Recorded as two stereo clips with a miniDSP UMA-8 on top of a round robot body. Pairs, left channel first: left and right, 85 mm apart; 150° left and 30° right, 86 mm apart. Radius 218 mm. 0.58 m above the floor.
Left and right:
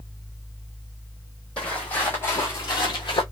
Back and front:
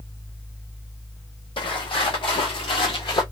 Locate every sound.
1.6 s footsteps: 170° left, 1.2 m; by 3.2 s 115° left, 0.9 m